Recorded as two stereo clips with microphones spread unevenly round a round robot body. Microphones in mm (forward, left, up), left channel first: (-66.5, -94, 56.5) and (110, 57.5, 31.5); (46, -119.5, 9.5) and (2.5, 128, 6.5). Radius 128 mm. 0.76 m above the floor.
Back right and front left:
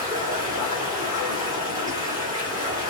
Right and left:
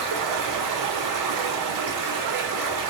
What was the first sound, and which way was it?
Running water, 115° left.